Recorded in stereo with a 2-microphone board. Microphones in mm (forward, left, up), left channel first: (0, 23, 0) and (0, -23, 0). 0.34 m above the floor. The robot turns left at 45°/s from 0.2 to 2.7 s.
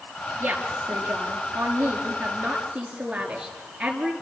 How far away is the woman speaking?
About 5.5 m.